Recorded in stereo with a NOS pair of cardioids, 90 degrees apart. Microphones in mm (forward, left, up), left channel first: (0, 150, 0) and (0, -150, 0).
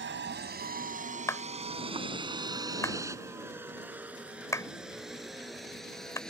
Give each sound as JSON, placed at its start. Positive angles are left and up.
{"t": 0.0, "sound": "a vehicle", "azimuth_deg": -40}
{"t": 1.3, "sound": "a clap", "azimuth_deg": 10}